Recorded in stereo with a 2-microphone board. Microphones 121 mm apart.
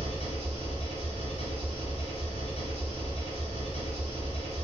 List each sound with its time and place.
0.0 s an engine running: 55° left (ahead or behind), 1.0 m